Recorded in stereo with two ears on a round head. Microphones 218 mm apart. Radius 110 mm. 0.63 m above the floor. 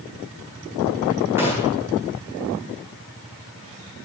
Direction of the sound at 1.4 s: 10° right (ahead or behind).